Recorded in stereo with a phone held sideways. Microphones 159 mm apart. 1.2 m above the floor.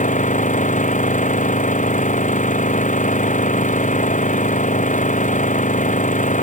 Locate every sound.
0.0 s an engine running: 50° left (ahead or behind)